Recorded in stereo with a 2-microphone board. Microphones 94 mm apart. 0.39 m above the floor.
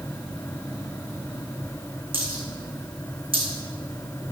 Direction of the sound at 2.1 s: 70° right (ahead or behind).